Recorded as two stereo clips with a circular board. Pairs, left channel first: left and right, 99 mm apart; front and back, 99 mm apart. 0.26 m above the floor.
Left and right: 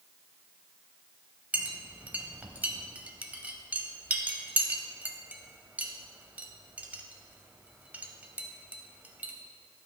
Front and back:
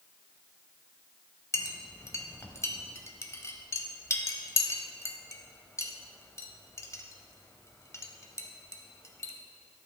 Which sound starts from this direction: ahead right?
A clink, at 1.5 s.